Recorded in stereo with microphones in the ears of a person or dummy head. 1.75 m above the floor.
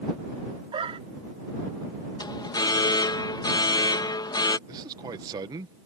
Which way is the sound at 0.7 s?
30° right (ahead or behind).